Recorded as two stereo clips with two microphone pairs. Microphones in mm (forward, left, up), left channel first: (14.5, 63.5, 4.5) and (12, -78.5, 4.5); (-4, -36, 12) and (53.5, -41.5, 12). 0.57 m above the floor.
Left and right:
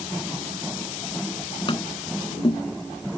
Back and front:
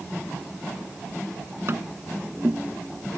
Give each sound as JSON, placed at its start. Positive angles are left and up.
{"t": 1.7, "sound": "tapping", "azimuth_deg": 35}